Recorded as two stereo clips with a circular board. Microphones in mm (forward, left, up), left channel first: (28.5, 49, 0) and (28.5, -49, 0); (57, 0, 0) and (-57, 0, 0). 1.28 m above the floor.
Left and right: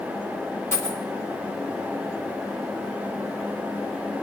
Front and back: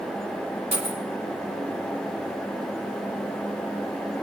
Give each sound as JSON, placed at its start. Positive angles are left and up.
{"t": 0.7, "sound": "a dropped coin", "azimuth_deg": 150, "distance_m": 4.0}